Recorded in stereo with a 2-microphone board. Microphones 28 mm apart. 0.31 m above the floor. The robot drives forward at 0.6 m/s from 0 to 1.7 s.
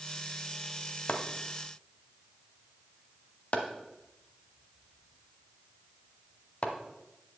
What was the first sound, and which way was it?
Chopping, 55° left (ahead or behind).